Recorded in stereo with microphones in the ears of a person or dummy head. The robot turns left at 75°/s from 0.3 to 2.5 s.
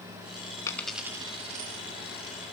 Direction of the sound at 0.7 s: 20° left (ahead or behind).